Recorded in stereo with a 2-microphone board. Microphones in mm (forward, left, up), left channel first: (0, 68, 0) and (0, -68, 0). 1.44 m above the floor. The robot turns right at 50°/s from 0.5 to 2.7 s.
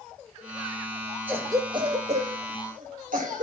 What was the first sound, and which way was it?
A cough, 15° right (ahead or behind).